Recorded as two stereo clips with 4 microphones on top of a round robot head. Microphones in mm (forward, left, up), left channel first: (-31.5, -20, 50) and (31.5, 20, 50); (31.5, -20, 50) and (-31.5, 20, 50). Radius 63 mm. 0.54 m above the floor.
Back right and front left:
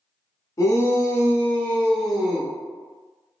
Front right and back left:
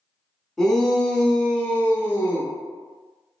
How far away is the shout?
About 1.1 m.